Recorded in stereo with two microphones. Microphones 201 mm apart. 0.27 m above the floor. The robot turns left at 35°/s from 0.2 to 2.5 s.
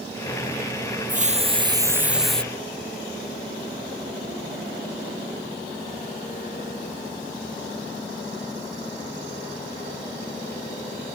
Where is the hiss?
140° right; by 2.4 s 175° left.